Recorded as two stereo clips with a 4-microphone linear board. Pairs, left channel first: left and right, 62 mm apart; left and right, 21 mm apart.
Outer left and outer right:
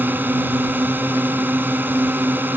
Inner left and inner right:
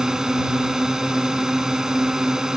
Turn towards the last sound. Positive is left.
turn(degrees=-30)  # may be behind; listen again after turning